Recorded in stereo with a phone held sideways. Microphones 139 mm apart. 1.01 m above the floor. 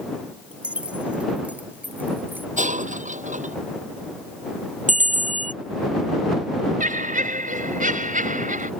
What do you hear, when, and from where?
0.5 s keys jangling: 5° right (ahead or behind); by 2.5 s 10° right (ahead or behind)
2.6 s breaking glass: 60° right (ahead or behind)
4.9 s a bell: 65° right (ahead or behind)
6.8 s laughter: 70° right (ahead or behind)